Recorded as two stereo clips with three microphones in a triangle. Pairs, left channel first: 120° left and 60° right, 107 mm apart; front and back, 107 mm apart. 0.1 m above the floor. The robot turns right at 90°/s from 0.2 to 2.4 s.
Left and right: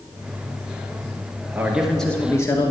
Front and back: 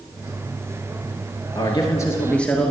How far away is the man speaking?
About 1.3 m.